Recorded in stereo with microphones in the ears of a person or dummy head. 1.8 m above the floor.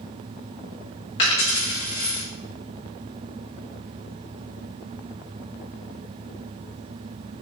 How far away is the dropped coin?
About 1.6 m.